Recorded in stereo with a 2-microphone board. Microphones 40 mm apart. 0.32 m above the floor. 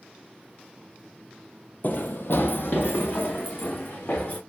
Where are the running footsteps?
55° left (ahead or behind), 0.5 m; by 4.4 s 70° left (ahead or behind), 2 m.